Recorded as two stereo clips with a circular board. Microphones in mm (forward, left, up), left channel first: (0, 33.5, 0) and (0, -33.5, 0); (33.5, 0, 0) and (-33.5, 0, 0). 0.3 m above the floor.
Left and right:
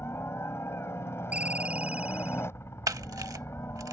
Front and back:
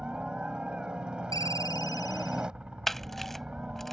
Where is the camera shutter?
85° right.